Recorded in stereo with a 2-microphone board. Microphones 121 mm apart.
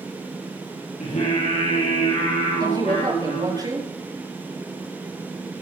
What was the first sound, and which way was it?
Singing, 70° left (ahead or behind).